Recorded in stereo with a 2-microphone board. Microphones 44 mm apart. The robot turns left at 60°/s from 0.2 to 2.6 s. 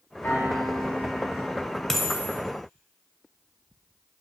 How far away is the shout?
No shout in this recording.